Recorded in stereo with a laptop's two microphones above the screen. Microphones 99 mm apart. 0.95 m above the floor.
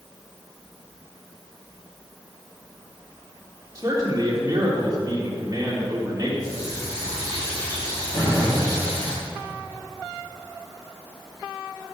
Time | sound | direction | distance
3.8 | a man speaking | 35° right (ahead or behind) | 3.5 m
6.4 | a running tap | 35° left (ahead or behind) | 5 m
8.1 | a gunshot | 50° left (ahead or behind) | 4.5 m